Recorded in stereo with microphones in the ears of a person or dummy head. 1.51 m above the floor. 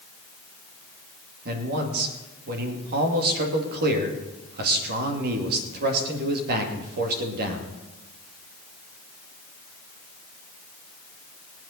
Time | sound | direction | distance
1.4 | a man speaking | 55° right (ahead or behind) | 2.5 m